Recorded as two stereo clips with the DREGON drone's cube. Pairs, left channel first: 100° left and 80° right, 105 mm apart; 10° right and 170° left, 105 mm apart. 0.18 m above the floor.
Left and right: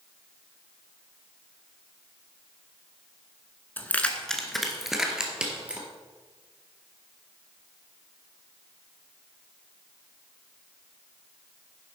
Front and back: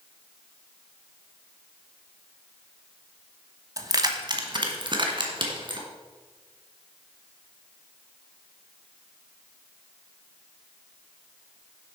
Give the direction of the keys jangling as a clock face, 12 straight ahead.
7 o'clock.